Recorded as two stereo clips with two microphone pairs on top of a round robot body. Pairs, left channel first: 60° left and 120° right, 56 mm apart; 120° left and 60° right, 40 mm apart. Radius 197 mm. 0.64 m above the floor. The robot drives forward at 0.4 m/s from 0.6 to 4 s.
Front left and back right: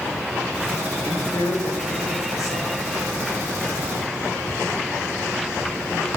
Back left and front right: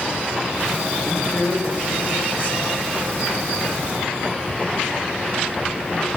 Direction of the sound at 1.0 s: 65° left.